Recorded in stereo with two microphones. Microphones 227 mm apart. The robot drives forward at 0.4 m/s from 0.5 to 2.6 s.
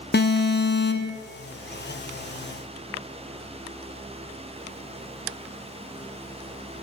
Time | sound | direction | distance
0.1 | an alarm | 50° left (ahead or behind) | 0.5 m